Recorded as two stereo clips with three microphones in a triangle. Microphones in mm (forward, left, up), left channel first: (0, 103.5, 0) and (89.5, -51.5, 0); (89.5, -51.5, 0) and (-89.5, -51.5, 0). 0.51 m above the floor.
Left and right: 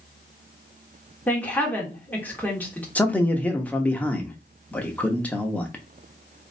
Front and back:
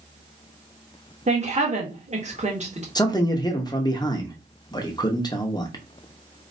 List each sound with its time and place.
1.3 s a woman speaking: 165° right, 1.5 m
3.0 s a man speaking: 45° left, 0.8 m